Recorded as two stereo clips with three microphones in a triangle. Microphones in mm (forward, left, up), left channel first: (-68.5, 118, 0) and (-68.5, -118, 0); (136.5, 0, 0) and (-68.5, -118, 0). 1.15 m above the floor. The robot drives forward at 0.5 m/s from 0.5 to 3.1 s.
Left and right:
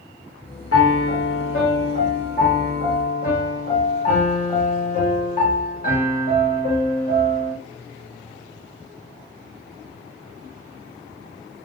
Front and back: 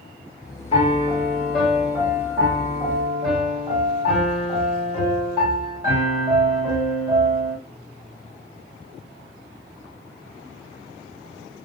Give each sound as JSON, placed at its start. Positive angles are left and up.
{"t": 0.7, "sound": "a piano", "azimuth_deg": 90, "distance_m": 0.9}